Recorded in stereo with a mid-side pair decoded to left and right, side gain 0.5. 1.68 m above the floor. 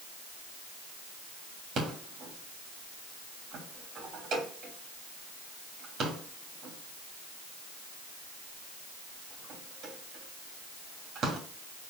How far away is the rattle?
About 3 m.